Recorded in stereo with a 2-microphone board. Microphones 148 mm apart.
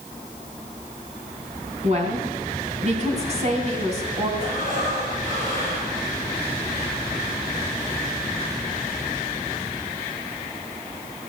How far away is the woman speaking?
About 3 m.